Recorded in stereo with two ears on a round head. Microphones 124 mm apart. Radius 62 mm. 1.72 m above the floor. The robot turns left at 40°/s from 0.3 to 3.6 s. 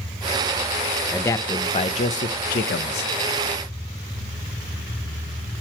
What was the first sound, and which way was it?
A man speaking, 165° left.